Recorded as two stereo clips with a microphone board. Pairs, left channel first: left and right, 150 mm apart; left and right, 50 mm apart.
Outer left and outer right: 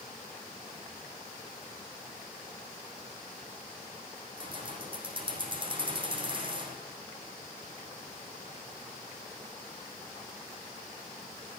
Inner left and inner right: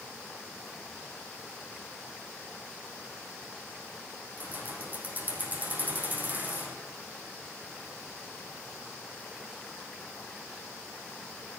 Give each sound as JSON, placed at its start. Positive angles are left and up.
{"t": 4.4, "sound": "keys jangling", "side_deg": -35, "distance_m": 4.0}